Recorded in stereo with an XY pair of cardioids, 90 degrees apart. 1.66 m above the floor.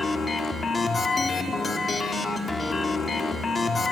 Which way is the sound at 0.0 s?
40° left.